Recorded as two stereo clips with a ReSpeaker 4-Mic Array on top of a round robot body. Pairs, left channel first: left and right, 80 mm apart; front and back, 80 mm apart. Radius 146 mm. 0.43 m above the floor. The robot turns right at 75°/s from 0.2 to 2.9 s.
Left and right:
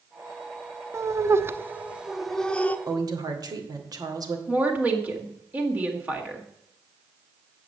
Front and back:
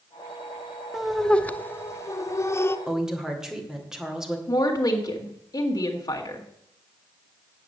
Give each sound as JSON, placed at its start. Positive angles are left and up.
{"t": 0.9, "sound": "laughter", "azimuth_deg": -100, "distance_m": 0.8}
{"t": 2.9, "sound": "a woman speaking", "azimuth_deg": -100, "distance_m": 2.0}
{"t": 4.5, "sound": "a woman speaking", "azimuth_deg": -25, "distance_m": 1.8}